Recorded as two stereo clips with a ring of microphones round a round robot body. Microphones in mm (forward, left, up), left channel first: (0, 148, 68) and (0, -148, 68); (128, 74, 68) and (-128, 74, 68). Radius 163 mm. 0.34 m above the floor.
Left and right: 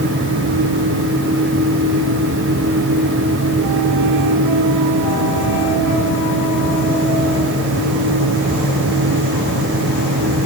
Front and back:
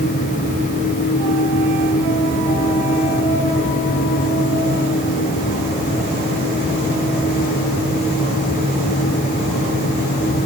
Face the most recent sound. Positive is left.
No sound to turn to.